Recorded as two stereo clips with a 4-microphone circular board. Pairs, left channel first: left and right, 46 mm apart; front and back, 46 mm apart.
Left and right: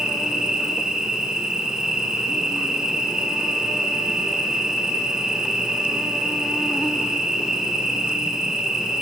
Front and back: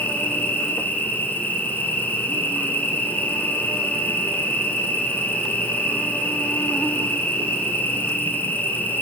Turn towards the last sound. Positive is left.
turn(degrees=-20)